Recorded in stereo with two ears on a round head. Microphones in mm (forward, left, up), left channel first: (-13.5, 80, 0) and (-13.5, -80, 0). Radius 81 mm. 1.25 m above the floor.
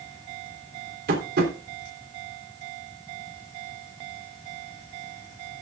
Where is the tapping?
60° right (ahead or behind), 3.5 m.